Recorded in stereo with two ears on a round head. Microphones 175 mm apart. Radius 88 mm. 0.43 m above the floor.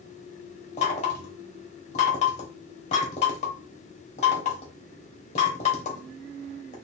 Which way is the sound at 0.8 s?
35° left (ahead or behind).